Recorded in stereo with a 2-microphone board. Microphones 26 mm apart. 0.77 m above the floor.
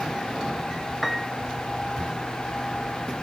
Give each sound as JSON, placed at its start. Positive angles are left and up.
{"t": 1.0, "sound": "a piano", "side_deg": -5}